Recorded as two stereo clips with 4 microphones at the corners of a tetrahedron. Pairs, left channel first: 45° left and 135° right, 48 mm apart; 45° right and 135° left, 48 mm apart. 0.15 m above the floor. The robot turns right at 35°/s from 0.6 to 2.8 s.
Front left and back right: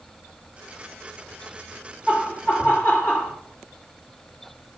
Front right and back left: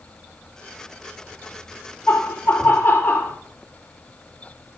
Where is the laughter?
20° right, 2 m; by 3.3 s 5° left, 2 m.